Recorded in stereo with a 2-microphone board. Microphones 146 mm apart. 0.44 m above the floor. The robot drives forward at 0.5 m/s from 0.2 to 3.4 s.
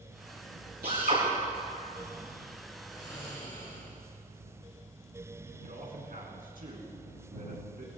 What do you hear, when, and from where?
0.8 s a drill: 85° right, 6 m
2.9 s snoring: 35° left (ahead or behind), 6 m
5.6 s a man speaking: 70° right (ahead or behind), 4 m